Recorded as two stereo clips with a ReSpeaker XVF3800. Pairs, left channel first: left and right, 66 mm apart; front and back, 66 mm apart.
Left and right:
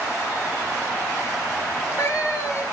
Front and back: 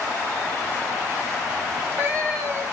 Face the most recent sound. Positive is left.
turn(degrees=130)